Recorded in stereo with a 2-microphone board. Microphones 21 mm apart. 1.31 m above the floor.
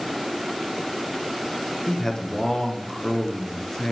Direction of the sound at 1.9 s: 25° left (ahead or behind).